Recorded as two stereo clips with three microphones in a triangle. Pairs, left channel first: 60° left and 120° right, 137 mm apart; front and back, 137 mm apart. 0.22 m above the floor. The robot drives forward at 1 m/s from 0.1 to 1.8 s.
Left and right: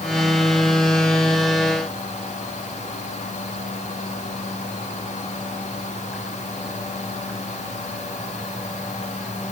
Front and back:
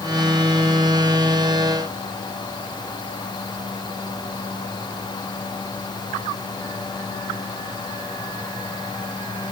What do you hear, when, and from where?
Only background noise.